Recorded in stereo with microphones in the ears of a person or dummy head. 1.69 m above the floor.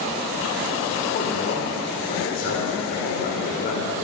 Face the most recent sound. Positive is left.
turn(degrees=55)  # may be behind; listen again after turning